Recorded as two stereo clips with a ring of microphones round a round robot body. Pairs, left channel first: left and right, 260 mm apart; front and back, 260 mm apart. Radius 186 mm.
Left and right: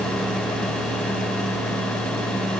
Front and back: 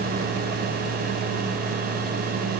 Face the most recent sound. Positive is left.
No sound to turn to.